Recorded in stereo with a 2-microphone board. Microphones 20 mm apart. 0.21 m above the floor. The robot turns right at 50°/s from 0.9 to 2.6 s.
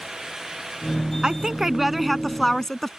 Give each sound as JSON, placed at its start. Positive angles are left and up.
{"t": 1.2, "sound": "a woman speaking", "azimuth_deg": -50}